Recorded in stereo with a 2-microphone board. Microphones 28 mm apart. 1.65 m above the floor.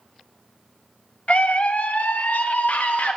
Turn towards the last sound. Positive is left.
turn(degrees=85)